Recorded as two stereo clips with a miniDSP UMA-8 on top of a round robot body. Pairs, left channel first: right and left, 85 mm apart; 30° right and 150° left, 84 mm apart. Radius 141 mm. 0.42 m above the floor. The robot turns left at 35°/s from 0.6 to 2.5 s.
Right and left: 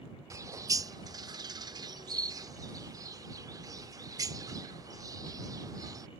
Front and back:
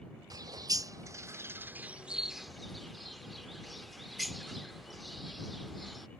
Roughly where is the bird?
Behind left.